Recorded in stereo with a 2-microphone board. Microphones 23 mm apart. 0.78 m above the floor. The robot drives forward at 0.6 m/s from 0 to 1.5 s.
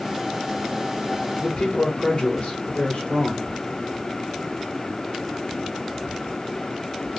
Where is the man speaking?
45° left (ahead or behind), 2.5 m.